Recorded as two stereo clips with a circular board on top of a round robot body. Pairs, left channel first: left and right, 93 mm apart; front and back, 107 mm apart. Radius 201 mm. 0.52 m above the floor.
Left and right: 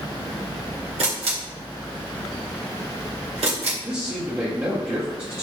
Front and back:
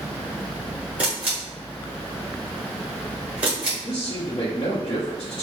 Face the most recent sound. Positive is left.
turn(degrees=-25)